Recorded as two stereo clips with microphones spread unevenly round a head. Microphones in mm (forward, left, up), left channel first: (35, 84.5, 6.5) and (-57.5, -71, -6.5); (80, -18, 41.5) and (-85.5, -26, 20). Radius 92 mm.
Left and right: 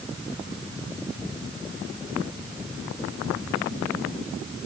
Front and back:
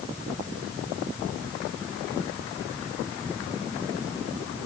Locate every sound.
Only background noise.